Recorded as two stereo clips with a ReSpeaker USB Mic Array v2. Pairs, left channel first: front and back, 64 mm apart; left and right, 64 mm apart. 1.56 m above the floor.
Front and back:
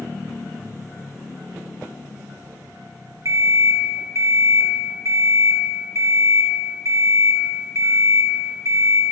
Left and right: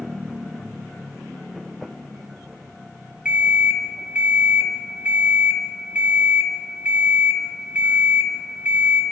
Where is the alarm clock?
160° right, 1.5 m.